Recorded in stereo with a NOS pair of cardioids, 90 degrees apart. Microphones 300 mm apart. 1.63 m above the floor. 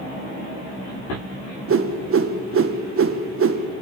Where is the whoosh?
45° right, 1.6 m.